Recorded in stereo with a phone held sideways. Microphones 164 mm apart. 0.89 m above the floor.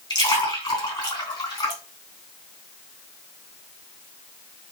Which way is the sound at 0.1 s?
25° left (ahead or behind).